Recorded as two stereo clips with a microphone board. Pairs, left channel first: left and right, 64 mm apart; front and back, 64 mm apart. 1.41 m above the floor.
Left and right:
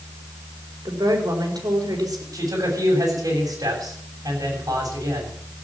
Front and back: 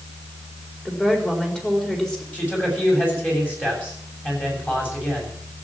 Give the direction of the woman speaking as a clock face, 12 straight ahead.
3 o'clock.